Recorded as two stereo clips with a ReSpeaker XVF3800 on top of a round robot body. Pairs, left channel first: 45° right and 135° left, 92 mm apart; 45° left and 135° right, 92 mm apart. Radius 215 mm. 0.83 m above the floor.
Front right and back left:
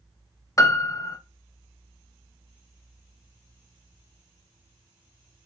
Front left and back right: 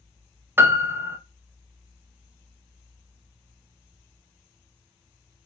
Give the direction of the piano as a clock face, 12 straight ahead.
3 o'clock.